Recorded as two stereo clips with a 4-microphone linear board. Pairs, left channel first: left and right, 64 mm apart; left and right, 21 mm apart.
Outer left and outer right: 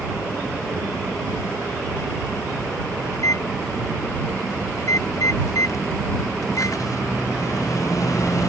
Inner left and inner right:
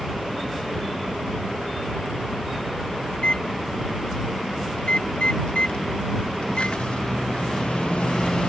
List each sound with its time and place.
3.1 s a microwave: 55° left (ahead or behind)